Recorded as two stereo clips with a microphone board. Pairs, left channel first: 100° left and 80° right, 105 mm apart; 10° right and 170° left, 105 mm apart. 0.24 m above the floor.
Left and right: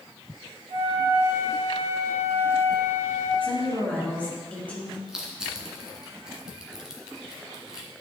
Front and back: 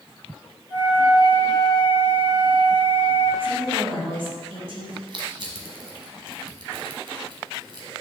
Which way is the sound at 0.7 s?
95° left.